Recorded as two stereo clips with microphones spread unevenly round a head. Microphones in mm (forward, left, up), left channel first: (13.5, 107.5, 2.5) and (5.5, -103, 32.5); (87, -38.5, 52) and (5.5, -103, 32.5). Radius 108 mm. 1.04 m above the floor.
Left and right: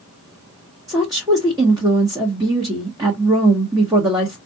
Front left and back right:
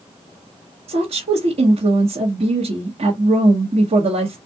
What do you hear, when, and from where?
0.9 s a woman speaking: 170° right, 1.1 m